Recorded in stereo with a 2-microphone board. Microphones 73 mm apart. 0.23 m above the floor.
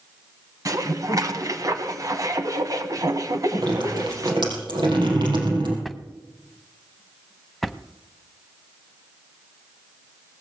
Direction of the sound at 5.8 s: Centre (ahead or behind).